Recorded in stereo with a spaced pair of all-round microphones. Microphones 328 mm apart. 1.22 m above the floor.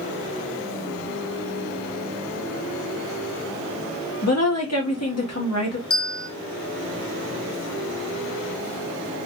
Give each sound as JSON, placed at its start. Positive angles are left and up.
{"t": 4.2, "sound": "a woman speaking", "side_deg": 50, "distance_m": 1.3}
{"t": 5.9, "sound": "a bell", "side_deg": 45, "distance_m": 0.5}